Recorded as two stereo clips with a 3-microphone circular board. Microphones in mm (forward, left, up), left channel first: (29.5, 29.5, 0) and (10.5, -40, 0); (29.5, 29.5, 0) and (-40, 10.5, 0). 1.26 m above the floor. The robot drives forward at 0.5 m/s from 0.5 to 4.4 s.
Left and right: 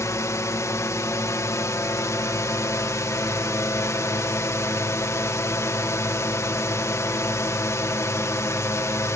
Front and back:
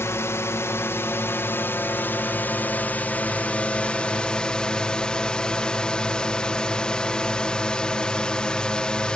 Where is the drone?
50° left; by 9.2 s 85° left.